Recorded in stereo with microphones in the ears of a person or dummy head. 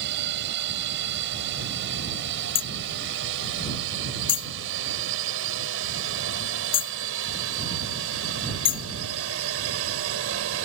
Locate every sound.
0.0 s a drone: 75° right (ahead or behind); by 10.6 s 70° right (ahead or behind)
2.5 s hammering: 25° left (ahead or behind)